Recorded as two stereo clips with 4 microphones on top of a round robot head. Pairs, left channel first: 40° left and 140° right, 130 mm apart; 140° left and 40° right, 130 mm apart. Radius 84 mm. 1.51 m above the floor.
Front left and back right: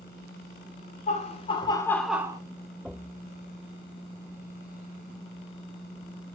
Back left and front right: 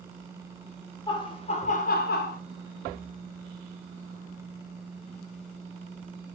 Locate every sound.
1.1 s laughter: 80° left, 1.1 m; by 2.4 s 160° left, 0.6 m